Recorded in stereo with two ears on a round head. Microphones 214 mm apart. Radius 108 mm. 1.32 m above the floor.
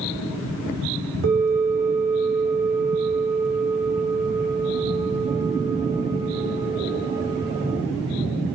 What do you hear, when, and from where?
1.2 s a bell: 45° right (ahead or behind), 1.1 m